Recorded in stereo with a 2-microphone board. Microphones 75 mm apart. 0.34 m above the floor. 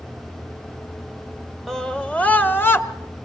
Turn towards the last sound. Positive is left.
turn(degrees=30)  # may be behind; listen again after turning